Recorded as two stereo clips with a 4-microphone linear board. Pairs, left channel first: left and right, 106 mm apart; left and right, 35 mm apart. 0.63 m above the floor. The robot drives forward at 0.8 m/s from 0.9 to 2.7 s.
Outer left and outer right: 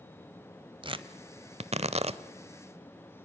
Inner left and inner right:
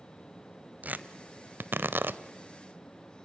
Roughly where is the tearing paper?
Right.